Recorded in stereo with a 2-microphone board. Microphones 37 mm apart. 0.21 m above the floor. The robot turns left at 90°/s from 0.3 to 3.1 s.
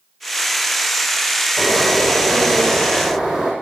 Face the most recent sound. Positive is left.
turn(degrees=-165)